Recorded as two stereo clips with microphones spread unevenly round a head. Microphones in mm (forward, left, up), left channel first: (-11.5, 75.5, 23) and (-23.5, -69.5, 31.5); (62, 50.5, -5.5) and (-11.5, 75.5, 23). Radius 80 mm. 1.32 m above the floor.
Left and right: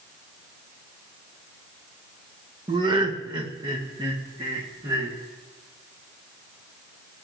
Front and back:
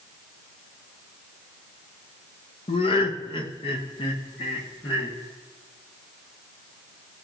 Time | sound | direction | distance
2.7 | laughter | 30° right | 1.0 m